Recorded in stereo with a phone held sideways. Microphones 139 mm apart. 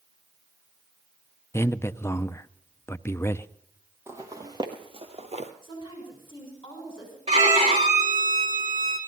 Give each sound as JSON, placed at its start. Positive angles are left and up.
{"t": 1.5, "sound": "a man speaking", "side_deg": 20, "distance_m": 0.6}
{"t": 4.1, "sound": "footsteps", "side_deg": -20, "distance_m": 2.0}
{"t": 5.6, "sound": "a woman speaking", "side_deg": 35, "distance_m": 6.5}
{"t": 7.3, "sound": "a violin", "side_deg": -45, "distance_m": 4.0}